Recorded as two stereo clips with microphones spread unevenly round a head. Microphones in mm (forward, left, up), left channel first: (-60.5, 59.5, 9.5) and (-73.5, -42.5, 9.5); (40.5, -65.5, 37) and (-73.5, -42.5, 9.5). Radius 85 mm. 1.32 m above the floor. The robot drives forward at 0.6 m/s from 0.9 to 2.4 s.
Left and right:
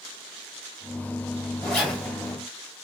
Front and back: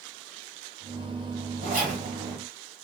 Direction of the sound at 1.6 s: 165° left.